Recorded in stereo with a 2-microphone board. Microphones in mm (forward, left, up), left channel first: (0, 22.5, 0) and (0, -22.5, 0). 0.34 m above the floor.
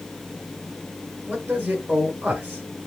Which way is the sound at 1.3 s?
20° right (ahead or behind).